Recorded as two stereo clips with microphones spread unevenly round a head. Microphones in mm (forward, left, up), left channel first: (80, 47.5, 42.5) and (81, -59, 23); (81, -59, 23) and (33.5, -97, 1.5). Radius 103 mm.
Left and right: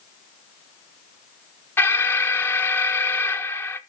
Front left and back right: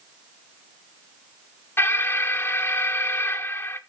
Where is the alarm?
35° left, 0.7 m.